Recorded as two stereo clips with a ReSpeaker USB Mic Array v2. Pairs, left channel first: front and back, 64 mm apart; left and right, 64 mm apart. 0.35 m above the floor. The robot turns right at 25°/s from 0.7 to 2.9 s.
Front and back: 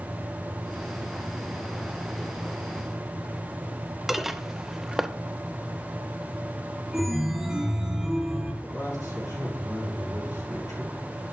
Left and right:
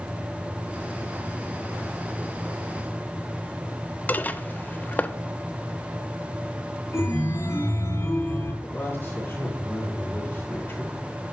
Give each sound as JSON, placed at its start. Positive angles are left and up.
{"t": 4.1, "sound": "dishes clattering", "azimuth_deg": 100, "distance_m": 0.5}
{"t": 6.9, "sound": "a chime", "azimuth_deg": 100, "distance_m": 2.5}
{"t": 8.6, "sound": "a man speaking", "azimuth_deg": 30, "distance_m": 5.0}